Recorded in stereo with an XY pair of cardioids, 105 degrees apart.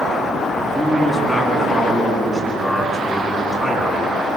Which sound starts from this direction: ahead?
A man speaking, at 0.6 s.